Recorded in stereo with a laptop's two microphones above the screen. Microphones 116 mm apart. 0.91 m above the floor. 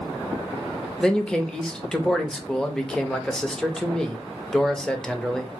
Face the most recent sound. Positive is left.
turn(degrees=5)  # may be behind; listen again after turning